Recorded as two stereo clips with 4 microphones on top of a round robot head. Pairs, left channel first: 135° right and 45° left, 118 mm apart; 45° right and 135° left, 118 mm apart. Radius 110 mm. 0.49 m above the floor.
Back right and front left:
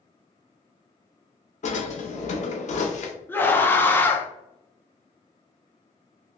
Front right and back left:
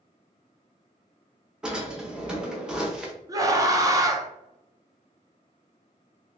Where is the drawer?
145° right, 0.8 m.